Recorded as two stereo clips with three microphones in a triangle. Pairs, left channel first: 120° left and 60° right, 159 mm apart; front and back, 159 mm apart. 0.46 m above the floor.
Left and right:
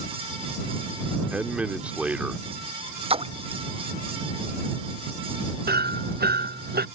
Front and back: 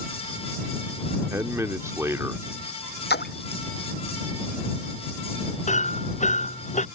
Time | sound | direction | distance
1.3 | a man speaking | 130° right | ?
3.1 | a splash | 5° right | ?
5.7 | hammering | 45° right | ?